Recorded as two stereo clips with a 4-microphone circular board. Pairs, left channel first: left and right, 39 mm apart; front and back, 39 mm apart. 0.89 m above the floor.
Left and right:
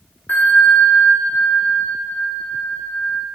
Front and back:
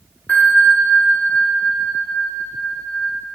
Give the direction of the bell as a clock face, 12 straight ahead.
10 o'clock.